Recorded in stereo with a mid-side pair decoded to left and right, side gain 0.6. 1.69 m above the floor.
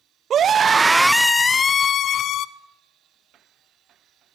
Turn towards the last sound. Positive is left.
turn(degrees=60)